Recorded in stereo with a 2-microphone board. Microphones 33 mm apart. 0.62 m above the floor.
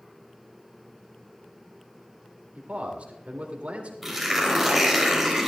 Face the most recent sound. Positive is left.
turn(degrees=-5)  # may be behind; listen again after turning